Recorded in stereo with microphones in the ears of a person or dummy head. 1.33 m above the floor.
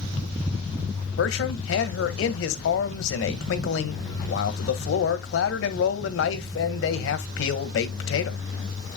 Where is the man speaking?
65° left (ahead or behind), 1.6 m.